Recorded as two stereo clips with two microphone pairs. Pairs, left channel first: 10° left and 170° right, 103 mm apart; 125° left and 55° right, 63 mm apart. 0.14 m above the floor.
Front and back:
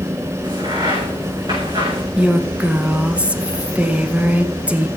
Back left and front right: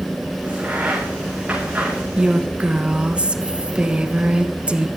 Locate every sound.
0.4 s a crack: 125° right, 6 m
2.2 s a woman speaking: 105° right, 1.2 m